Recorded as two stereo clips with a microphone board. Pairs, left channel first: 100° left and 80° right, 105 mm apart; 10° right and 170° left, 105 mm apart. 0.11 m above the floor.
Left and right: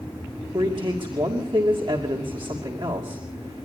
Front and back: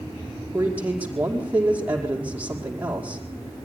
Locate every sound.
0.5 s a man speaking: 115° right, 5 m